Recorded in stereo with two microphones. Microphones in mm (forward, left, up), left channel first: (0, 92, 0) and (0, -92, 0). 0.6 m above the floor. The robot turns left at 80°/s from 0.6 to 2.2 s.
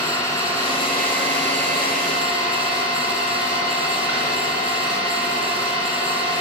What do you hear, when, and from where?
0.0 s an engine running: 165° left, 5 m; by 6.4 s 35° left, 5 m